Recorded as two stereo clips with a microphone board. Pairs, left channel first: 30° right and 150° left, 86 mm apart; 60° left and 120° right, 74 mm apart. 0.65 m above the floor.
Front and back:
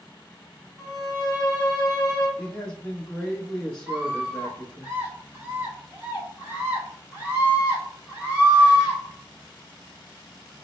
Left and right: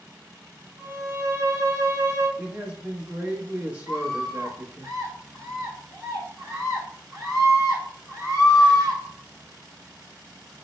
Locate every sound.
0.8 s a violin: 90° right, 1.9 m
2.4 s a man speaking: 90° right, 0.8 m
3.9 s a scream: 140° right, 1.9 m